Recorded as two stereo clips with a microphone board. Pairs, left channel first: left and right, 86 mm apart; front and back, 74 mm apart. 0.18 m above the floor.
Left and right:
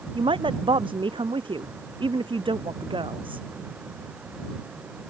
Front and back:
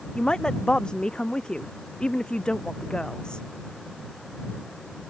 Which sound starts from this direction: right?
A woman speaking, at 0.1 s.